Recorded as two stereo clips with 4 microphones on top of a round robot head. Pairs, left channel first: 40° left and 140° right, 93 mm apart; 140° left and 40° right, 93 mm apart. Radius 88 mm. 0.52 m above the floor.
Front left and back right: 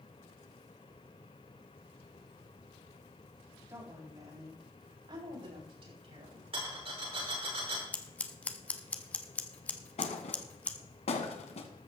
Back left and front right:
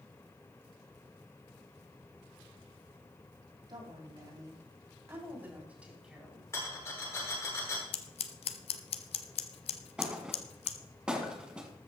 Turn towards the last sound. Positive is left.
turn(degrees=40)